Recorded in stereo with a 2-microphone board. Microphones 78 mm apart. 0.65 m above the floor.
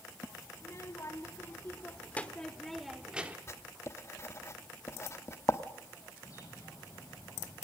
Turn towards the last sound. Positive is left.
turn(degrees=45)  # may be behind; listen again after turning